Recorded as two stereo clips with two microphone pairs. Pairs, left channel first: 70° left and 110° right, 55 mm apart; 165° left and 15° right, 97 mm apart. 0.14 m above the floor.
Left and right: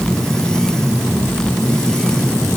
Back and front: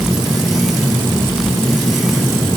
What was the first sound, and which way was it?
Only background noise.